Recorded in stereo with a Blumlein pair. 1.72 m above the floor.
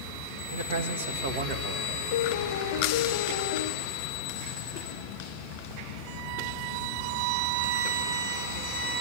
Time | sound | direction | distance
0.5 | a man speaking | 65° right | 2.5 m
2.1 | a piano | 55° left | 1.1 m